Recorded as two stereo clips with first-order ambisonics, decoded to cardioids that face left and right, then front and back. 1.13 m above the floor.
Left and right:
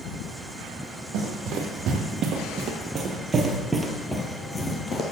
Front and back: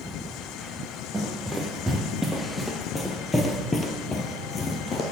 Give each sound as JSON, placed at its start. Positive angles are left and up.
{"t": 1.1, "sound": "running footsteps", "azimuth_deg": -100, "distance_m": 1.8}